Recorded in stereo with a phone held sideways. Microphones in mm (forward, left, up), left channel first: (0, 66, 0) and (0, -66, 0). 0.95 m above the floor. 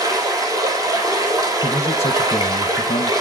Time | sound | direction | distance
0.0 | running water | 25° right (ahead or behind) | 4 m
1.6 | a man speaking | 50° left (ahead or behind) | 0.8 m